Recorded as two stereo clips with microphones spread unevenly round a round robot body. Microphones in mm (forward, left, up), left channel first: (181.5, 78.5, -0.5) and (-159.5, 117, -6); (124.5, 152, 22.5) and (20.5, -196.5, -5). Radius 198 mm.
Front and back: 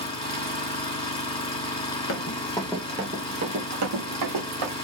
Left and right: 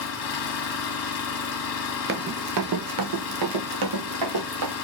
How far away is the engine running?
About 1.4 m.